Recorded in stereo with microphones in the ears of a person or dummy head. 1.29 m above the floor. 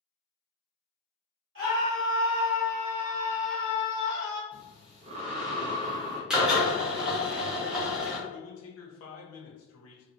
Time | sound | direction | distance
1.6 | a scream | 65° right (ahead or behind) | 1.1 m
4.5 | breathing | 45° right (ahead or behind) | 0.5 m
6.3 | a drill | 10° right (ahead or behind) | 0.6 m
8.3 | a man speaking | 75° left (ahead or behind) | 0.8 m